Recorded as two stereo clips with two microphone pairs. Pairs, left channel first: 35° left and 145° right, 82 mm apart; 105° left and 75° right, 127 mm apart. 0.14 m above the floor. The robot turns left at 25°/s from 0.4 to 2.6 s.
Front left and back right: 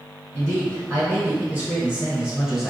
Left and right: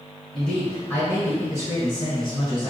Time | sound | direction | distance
0.3 | a man speaking | 175° right | 1.4 m